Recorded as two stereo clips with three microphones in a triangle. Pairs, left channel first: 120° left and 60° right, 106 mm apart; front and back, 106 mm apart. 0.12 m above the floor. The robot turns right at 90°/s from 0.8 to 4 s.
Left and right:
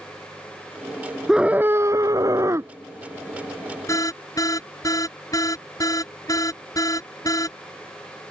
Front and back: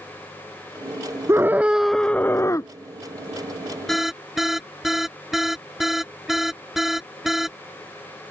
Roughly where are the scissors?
No scissors in this recording.